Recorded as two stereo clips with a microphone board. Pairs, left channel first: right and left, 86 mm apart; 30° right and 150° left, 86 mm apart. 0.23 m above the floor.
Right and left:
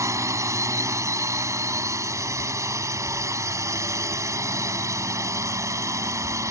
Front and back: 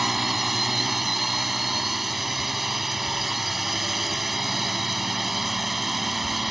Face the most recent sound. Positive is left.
turn(degrees=60)